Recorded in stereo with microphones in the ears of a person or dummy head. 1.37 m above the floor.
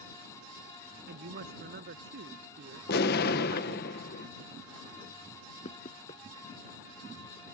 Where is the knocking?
30° left (ahead or behind).